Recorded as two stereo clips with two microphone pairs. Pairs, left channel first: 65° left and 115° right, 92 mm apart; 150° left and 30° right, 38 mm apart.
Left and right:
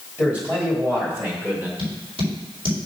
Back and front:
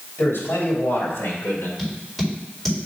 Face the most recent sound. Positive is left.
turn(degrees=-130)